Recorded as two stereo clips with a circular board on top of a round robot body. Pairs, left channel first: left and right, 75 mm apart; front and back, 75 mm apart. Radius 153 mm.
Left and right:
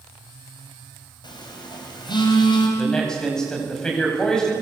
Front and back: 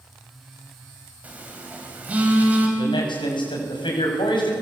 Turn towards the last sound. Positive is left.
turn(degrees=5)